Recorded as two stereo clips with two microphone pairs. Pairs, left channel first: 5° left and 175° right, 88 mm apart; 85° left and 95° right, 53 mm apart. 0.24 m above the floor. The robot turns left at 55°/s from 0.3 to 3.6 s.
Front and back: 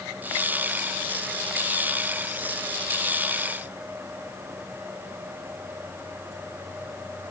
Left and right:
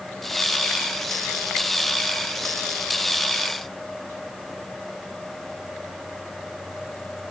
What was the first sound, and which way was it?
Only background noise.